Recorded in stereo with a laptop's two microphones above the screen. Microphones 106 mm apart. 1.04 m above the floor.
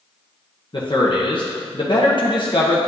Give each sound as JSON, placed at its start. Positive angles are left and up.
{"t": 0.7, "sound": "a man speaking", "side_deg": 50, "distance_m": 0.9}